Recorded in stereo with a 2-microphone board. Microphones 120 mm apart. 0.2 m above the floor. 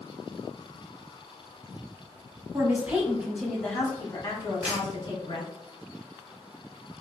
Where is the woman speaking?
20° right (ahead or behind), 1.1 m; by 5.5 s 40° left (ahead or behind), 1.8 m.